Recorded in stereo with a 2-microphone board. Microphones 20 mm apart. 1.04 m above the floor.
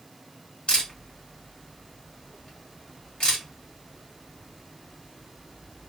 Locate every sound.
0.7 s a camera shutter: 40° left (ahead or behind), 1.7 m